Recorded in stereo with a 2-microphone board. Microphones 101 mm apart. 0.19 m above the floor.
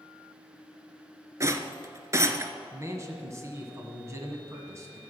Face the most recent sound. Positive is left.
turn(degrees=-30)  # may be behind; listen again after turning